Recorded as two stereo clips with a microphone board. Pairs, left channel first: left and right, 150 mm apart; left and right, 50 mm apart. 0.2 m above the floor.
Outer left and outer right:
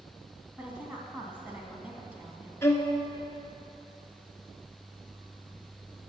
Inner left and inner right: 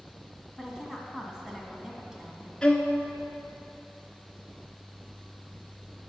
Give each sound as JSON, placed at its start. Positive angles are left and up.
{"t": 0.6, "sound": "a woman speaking", "side_deg": -10, "distance_m": 2.0}
{"t": 2.6, "sound": "a violin", "side_deg": 15, "distance_m": 1.2}